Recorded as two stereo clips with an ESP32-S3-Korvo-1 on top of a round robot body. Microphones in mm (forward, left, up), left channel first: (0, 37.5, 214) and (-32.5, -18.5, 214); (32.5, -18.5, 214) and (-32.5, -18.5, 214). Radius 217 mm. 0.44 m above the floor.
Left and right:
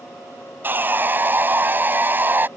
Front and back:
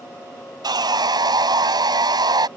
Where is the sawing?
Straight behind.